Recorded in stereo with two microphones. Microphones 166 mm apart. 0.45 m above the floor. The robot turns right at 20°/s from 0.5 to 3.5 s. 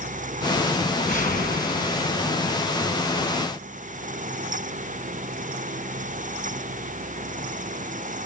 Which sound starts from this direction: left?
A whoosh, at 0.8 s.